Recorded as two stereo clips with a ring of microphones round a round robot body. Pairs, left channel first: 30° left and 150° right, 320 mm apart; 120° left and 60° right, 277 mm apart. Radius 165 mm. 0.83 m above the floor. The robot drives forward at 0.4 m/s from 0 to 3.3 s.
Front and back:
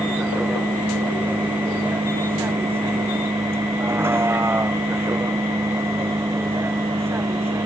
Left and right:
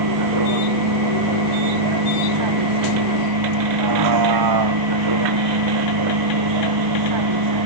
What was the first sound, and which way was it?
A vehicle, 65° right.